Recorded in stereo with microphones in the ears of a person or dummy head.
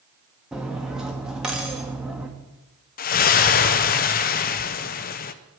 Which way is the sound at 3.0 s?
40° left (ahead or behind).